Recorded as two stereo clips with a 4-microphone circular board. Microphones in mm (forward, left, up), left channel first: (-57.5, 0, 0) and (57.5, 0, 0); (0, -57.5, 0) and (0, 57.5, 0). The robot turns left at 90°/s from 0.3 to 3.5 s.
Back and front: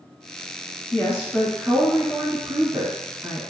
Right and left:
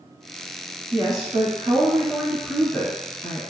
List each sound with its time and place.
0.9 s a woman speaking: 140° left, 1.5 m; by 3.4 s 85° right, 1.5 m